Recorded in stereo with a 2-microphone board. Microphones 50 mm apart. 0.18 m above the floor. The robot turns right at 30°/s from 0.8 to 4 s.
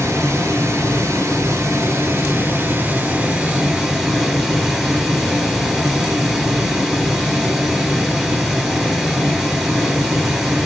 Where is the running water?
105° right, 1.7 m; by 10.7 s 10° right, 1.7 m.